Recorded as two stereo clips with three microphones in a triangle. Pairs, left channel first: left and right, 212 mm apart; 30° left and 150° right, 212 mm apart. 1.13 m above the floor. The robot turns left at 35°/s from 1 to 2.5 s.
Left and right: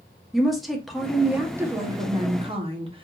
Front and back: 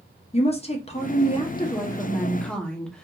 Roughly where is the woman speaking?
Ahead.